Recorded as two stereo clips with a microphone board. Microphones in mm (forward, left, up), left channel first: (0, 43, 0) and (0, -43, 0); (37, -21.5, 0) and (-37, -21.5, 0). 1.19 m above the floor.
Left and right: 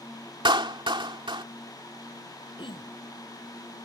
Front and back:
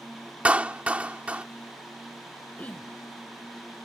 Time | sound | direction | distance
0.5 | a clap | 110° right | ?
2.6 | throat clearing | 70° left | ?